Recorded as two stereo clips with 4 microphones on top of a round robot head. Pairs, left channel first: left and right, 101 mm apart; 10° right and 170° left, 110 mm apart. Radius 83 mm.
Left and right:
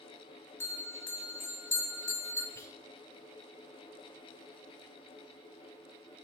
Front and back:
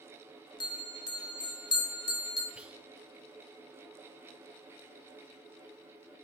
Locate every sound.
0.6 s a bell: 25° left, 0.8 m
2.5 s whispering: 100° left, 0.7 m